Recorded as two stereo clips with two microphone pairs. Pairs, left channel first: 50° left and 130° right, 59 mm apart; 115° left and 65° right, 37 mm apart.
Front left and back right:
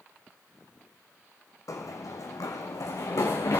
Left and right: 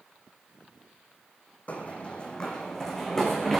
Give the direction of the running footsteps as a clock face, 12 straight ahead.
10 o'clock.